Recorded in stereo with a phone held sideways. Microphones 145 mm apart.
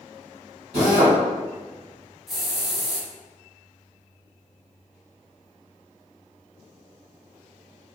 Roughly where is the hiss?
Centre.